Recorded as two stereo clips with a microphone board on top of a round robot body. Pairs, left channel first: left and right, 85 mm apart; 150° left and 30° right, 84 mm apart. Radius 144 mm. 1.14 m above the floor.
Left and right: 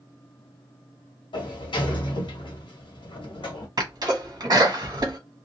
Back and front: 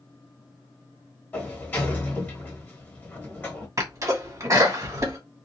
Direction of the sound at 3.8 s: 75° right.